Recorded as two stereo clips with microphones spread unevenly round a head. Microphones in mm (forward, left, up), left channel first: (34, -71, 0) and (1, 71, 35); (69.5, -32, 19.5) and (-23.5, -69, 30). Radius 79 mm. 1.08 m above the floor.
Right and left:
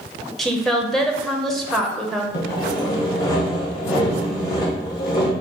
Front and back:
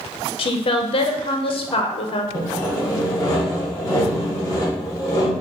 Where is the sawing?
25° right, 1.4 m.